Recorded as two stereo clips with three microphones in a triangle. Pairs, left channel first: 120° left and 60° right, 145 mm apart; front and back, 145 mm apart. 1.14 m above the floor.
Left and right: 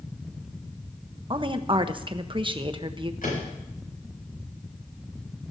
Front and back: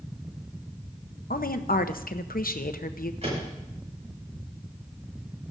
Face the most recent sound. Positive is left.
turn(degrees=140)